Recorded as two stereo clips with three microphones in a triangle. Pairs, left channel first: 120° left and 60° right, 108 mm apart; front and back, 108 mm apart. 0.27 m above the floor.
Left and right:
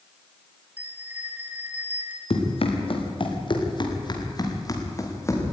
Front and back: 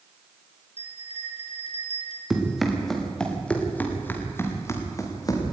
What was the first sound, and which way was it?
A bell, 15° left.